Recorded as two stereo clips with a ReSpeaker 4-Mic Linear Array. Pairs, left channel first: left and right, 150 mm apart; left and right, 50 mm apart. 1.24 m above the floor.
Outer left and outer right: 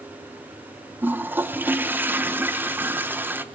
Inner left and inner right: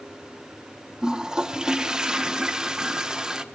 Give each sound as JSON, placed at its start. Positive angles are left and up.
{"t": 1.0, "sound": "a toilet flushing", "side_deg": -10, "distance_m": 1.3}